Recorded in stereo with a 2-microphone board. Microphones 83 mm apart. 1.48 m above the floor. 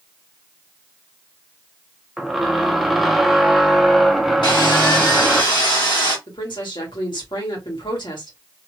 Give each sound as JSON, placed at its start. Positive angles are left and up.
{"t": 2.2, "sound": "a squeak", "side_deg": 0, "distance_m": 0.6}
{"t": 4.4, "sound": "sawing", "side_deg": 70, "distance_m": 1.4}
{"t": 6.3, "sound": "a woman speaking", "side_deg": 75, "distance_m": 1.7}